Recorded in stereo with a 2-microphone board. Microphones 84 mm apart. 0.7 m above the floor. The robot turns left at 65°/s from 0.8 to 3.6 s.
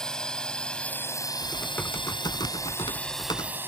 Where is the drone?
5° left (ahead or behind); by 3.7 s 25° right (ahead or behind).